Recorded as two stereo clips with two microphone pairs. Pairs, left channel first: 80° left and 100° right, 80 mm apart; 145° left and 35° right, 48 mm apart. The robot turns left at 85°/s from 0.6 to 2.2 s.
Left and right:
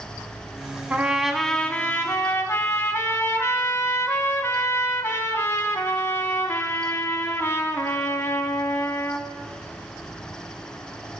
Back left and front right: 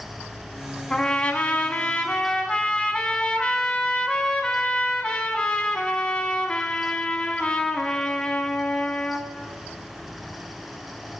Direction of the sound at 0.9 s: 155° right.